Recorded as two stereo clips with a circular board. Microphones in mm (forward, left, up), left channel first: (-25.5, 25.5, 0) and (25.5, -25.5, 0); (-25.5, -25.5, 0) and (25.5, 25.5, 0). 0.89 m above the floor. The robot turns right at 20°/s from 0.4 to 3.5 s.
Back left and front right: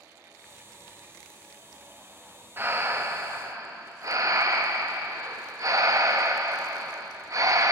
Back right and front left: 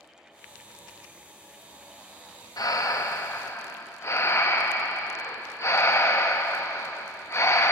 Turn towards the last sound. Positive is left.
turn(degrees=-85)